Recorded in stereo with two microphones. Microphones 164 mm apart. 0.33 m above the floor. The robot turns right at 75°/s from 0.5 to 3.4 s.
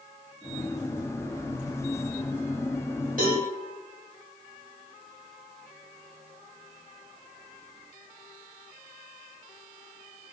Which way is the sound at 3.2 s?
70° right (ahead or behind).